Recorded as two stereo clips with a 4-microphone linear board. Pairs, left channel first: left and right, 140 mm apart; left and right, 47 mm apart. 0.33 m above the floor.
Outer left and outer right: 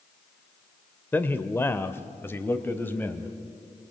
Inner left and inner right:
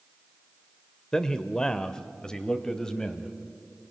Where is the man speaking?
15° left (ahead or behind), 0.8 m.